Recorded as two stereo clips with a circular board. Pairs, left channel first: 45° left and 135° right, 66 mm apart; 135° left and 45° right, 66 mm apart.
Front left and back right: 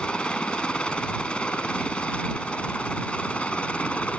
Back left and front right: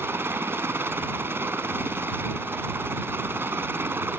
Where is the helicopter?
20° right; by 4.2 s 15° right.